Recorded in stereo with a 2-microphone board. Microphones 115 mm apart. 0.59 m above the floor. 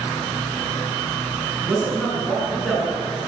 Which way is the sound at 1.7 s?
5° right (ahead or behind).